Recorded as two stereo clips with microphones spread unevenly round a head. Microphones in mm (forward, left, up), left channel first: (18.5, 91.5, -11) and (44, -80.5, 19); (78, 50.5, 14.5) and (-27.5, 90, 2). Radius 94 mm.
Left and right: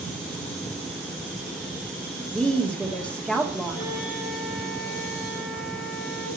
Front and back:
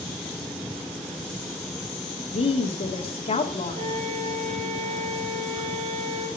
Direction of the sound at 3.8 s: 135° left.